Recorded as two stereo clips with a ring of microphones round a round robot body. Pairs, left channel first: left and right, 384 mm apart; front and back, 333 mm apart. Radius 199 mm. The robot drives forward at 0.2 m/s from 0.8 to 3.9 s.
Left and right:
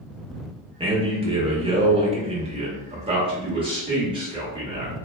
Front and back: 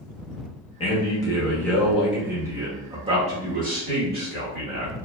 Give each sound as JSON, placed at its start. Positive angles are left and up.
{"t": 0.8, "sound": "a man speaking", "azimuth_deg": -40, "distance_m": 0.8}